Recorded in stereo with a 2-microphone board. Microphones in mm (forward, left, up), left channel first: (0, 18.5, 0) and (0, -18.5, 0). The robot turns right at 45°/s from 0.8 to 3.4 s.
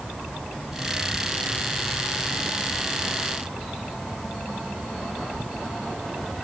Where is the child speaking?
I don't hear a child speaking.